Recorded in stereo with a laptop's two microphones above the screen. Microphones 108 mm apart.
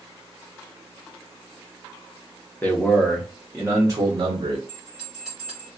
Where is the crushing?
I don't hear crushing.